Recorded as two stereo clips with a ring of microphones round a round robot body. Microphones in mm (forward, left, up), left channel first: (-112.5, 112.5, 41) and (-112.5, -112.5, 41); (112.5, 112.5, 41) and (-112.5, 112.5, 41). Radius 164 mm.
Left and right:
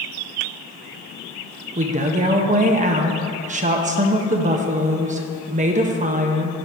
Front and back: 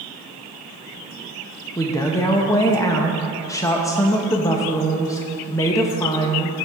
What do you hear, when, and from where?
1.8 s a woman speaking: 65° right, 0.6 m